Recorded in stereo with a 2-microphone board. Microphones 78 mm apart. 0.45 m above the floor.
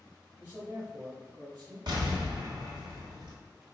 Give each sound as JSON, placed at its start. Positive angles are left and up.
{"t": 0.4, "sound": "a man speaking", "side_deg": -25, "distance_m": 1.7}
{"t": 1.9, "sound": "an explosion", "side_deg": -65, "distance_m": 1.3}